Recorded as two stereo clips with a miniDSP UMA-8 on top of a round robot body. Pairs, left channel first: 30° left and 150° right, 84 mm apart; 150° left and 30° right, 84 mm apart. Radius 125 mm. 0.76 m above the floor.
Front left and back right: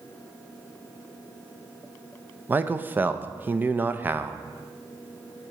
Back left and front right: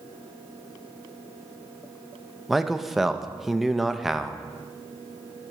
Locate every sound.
2.5 s a man speaking: 115° right, 0.6 m